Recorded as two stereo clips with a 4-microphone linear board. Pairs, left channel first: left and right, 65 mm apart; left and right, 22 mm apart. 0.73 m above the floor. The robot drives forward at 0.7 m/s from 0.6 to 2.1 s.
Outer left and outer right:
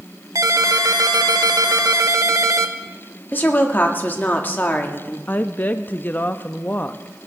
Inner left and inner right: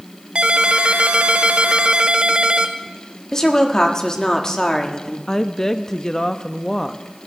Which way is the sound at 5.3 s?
25° left (ahead or behind).